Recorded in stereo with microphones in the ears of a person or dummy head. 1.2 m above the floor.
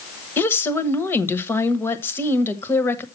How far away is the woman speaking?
About 1.2 m.